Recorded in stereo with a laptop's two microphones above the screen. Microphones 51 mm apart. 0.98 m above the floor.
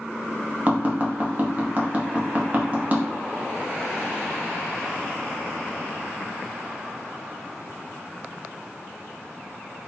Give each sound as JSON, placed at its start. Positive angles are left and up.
{"t": 0.7, "sound": "tapping", "side_deg": -35, "distance_m": 0.7}